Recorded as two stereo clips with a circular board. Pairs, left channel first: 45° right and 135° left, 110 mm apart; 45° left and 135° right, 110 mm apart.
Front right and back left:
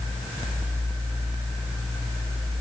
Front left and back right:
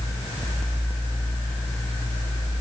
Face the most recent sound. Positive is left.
No sound to turn to.